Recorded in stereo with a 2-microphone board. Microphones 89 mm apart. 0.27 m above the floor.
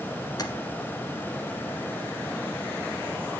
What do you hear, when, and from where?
0.4 s tapping: 45° left (ahead or behind), 1.0 m